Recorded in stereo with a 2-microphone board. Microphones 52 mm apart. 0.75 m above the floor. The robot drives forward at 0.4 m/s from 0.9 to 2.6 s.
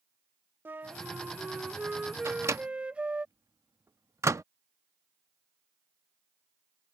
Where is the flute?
40° right (ahead or behind); by 3.2 s 20° right (ahead or behind).